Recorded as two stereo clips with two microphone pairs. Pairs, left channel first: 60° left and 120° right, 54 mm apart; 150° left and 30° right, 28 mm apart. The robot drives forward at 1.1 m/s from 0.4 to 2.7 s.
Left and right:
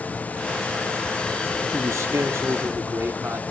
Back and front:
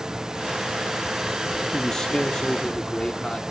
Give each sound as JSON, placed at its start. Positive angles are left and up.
{"t": 1.7, "sound": "a man speaking", "azimuth_deg": -135, "distance_m": 1.4}